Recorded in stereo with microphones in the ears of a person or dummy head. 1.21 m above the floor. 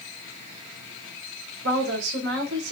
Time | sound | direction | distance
1.6 | a woman speaking | 80° right | 3.5 m